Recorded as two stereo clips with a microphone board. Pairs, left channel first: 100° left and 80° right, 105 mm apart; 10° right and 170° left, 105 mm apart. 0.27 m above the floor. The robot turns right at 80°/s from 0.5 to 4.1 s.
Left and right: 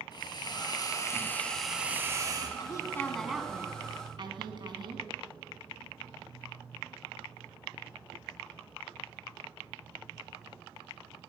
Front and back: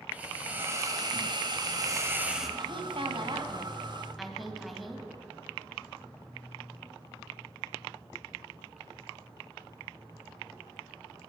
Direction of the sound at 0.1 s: 100° left.